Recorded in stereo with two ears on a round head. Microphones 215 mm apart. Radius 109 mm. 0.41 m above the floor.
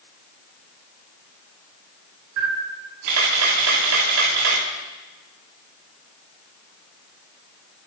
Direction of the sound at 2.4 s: 80° right.